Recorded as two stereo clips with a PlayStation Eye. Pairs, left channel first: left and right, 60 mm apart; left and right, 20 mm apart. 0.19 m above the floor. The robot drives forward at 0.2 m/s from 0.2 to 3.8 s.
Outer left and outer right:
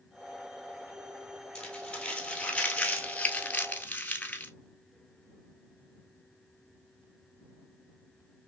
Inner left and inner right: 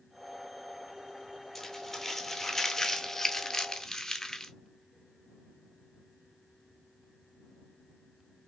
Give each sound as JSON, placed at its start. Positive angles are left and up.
{"t": 1.6, "sound": "crumpling", "side_deg": 15, "distance_m": 1.0}